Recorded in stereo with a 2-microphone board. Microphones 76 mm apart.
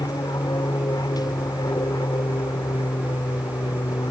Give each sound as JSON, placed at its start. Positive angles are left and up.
{"t": 0.0, "sound": "an aircraft", "side_deg": 60}